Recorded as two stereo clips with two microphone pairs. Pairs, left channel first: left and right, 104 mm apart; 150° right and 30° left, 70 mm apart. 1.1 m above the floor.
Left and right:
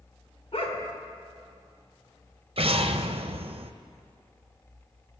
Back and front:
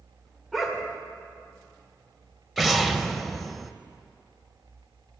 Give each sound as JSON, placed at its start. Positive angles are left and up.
{"t": 0.5, "sound": "a dog barking", "azimuth_deg": 120, "distance_m": 1.7}
{"t": 2.6, "sound": "an explosion", "azimuth_deg": -60, "distance_m": 0.6}